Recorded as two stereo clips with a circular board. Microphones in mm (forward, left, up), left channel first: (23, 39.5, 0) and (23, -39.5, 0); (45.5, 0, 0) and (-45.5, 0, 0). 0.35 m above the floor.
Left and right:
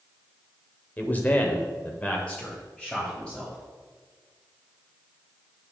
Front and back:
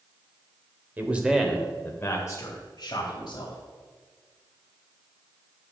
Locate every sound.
1.0 s a man speaking: 135° left, 1.2 m; by 3.6 s 5° left, 2 m